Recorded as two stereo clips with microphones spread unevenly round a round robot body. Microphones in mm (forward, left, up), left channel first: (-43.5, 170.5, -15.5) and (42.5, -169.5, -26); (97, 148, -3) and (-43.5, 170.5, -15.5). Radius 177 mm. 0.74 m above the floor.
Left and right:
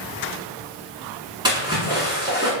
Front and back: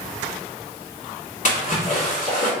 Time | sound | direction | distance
1.4 | a splash | straight ahead | 1.1 m